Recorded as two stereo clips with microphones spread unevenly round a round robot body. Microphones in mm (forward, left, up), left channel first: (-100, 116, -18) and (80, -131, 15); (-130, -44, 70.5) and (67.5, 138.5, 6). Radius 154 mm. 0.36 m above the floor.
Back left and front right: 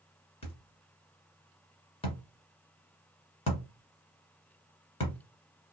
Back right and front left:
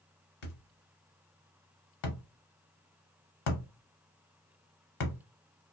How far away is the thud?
About 1.1 m.